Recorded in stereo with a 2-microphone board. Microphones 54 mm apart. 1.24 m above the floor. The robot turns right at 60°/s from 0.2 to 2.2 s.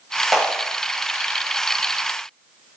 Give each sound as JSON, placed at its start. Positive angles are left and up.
{"t": 0.3, "sound": "a clap", "side_deg": 0, "distance_m": 7.5}